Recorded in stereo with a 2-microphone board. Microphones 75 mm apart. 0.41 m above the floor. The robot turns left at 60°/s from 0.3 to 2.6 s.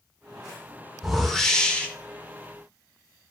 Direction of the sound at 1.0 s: 5° right (ahead or behind).